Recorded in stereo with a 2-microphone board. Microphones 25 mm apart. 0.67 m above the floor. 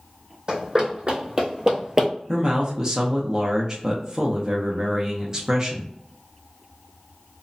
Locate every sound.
0.5 s running footsteps: 45° right (ahead or behind), 1.4 m; by 2.1 s 20° right (ahead or behind), 0.6 m
2.3 s a man speaking: 25° right (ahead or behind), 0.5 m